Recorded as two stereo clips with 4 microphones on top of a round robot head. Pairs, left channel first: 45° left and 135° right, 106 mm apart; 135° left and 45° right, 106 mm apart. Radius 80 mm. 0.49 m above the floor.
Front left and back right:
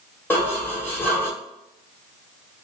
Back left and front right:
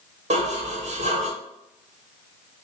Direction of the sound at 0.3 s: 30° right.